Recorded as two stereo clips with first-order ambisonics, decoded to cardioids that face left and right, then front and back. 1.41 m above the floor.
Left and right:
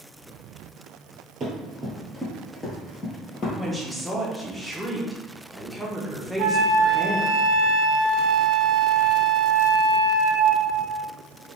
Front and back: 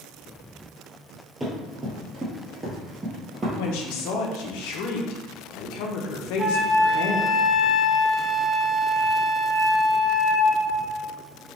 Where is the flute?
95° right, 0.5 m.